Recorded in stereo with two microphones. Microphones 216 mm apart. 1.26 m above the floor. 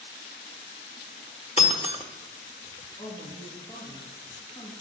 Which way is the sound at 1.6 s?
30° left (ahead or behind).